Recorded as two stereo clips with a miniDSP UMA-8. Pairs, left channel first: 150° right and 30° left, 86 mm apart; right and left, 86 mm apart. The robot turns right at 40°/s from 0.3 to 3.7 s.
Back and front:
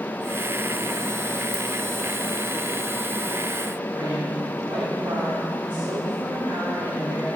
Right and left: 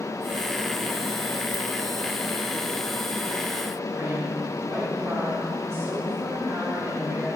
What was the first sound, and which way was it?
A ringtone, 60° left.